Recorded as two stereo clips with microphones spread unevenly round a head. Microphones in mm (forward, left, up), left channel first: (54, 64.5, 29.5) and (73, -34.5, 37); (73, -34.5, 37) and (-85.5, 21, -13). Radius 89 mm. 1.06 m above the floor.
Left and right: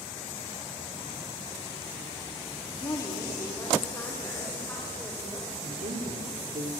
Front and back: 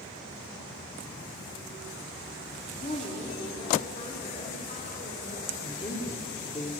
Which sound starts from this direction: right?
A woman speaking, at 5.6 s.